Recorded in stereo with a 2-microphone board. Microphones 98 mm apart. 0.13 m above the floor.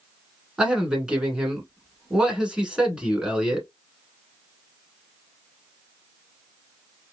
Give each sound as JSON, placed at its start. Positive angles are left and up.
{"t": 0.6, "sound": "a man speaking", "side_deg": -10, "distance_m": 1.1}